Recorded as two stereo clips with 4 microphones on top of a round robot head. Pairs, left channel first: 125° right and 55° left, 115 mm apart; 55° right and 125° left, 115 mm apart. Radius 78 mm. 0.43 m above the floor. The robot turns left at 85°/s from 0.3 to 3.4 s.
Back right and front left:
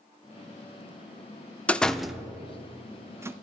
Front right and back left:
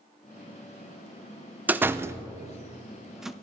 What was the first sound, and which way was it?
A door slam, 175° left.